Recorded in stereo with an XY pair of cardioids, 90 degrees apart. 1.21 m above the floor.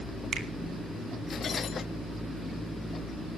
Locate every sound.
0.3 s a finger snap: 65° right, 2.5 m